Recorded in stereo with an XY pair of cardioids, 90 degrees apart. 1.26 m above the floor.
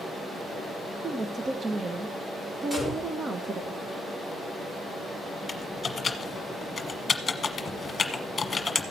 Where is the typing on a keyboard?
40° left, 1.3 m.